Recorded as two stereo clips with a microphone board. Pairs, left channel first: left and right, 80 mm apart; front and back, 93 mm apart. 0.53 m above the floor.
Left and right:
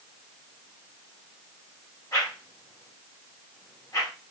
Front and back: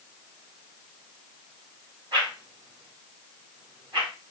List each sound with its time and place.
2.1 s a whoosh: 140° left, 2.5 m